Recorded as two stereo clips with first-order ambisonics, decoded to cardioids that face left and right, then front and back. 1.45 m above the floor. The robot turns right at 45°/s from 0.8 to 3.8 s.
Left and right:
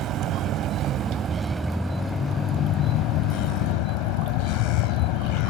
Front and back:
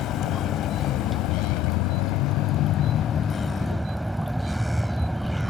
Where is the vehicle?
45° right; by 5.5 s 90° left.